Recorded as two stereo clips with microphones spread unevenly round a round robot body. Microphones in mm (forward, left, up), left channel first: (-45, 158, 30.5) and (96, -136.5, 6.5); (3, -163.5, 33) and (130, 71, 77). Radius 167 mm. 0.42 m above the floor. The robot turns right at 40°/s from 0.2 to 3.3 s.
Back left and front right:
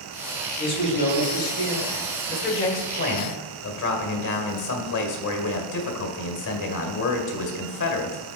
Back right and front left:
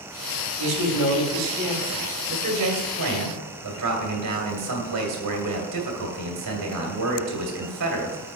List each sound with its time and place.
0.6 s a man speaking: 35° left, 3 m; by 2.1 s 95° left, 3 m
2.3 s a man speaking: 45° left, 1.9 m; by 8.2 s 85° left, 1.9 m